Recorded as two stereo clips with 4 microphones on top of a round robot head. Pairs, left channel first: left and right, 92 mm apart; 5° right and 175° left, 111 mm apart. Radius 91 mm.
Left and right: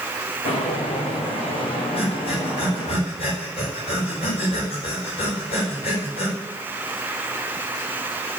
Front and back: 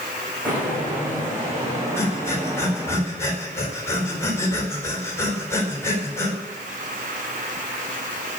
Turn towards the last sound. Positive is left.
turn(degrees=65)